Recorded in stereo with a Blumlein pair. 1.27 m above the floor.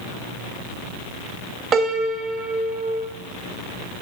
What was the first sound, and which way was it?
A piano, 25° right.